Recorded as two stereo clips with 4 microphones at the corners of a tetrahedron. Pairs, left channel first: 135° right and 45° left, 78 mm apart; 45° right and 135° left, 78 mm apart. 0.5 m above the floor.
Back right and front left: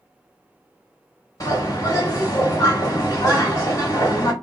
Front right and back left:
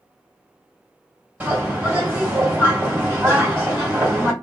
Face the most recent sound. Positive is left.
turn(degrees=-165)